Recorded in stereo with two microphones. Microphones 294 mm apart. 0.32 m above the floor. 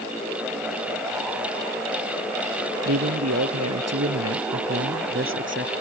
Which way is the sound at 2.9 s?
65° right (ahead or behind).